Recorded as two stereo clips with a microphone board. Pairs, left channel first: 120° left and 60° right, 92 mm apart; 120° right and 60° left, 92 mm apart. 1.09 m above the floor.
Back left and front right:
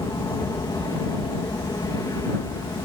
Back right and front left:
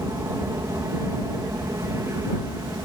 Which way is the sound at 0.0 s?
95° left.